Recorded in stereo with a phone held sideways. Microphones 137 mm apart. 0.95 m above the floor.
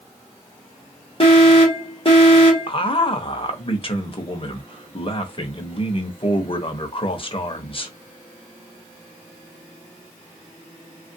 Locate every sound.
1.2 s an alarm: 40° left (ahead or behind), 1.4 m
2.7 s a man speaking: 40° left (ahead or behind), 0.8 m